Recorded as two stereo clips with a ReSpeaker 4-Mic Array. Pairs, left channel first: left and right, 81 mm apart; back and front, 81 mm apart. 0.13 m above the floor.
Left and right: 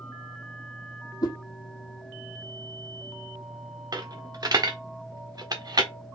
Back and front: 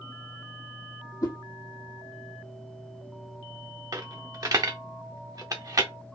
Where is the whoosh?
130° left, 1.5 m.